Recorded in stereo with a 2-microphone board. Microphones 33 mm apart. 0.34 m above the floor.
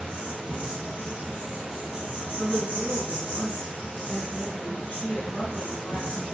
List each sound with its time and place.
0.0 s an insect: 65° right (ahead or behind), 1.5 m
2.4 s a woman speaking: 35° left (ahead or behind), 1.1 m